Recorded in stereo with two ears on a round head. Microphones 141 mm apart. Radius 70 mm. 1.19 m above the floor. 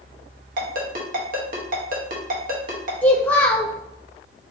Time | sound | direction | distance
0.6 | a ringtone | 60° right (ahead or behind) | 1.1 m
3.0 | a child speaking | 10° left (ahead or behind) | 0.5 m